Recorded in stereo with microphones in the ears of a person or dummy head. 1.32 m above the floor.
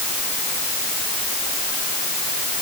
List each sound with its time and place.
Only background noise.